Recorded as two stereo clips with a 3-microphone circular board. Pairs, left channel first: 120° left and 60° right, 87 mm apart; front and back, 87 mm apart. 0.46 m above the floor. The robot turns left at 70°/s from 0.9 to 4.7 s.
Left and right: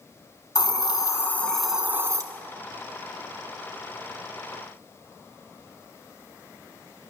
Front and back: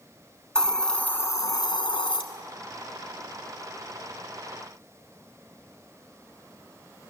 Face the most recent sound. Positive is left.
turn(degrees=175)